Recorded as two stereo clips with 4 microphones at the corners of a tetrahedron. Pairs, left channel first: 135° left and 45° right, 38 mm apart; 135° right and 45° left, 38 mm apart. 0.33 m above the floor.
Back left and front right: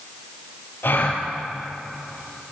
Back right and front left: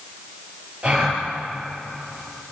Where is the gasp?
105° left, 5.5 m.